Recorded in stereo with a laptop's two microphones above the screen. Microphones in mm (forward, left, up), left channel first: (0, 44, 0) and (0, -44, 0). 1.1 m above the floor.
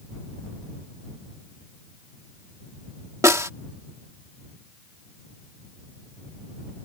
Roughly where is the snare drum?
Right.